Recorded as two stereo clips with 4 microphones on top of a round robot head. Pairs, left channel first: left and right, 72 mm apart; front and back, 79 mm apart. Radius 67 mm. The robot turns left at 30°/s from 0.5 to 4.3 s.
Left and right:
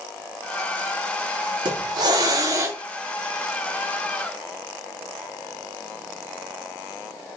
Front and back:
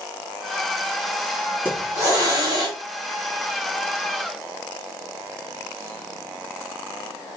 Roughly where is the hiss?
Right.